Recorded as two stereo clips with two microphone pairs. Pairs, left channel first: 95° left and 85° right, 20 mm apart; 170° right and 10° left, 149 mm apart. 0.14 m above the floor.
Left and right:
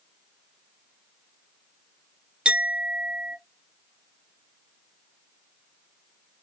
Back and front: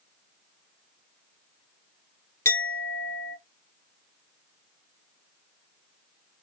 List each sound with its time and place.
2.5 s a clink: 100° right, 1.3 m